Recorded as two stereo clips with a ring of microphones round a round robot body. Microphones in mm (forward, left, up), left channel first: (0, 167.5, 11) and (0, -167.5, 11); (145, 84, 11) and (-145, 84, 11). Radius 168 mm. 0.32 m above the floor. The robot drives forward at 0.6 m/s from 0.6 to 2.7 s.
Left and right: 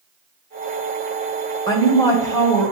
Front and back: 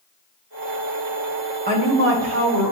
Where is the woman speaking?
160° left, 1.0 m; by 2.7 s 170° left, 1.4 m.